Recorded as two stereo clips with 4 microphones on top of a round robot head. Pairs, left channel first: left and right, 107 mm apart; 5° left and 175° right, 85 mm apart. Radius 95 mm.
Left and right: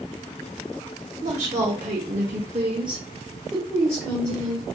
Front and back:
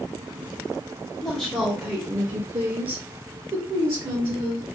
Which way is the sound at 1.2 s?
80° right.